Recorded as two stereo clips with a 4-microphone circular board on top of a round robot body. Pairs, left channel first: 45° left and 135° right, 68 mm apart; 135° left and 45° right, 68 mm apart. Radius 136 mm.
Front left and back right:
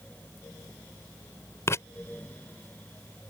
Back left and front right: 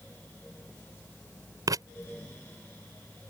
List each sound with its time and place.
1.7 s writing: 10° right